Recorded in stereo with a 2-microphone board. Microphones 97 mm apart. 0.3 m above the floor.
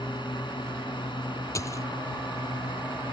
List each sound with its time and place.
0.0 s a drone: 50° left (ahead or behind)
1.6 s a dropped coin: 30° left (ahead or behind)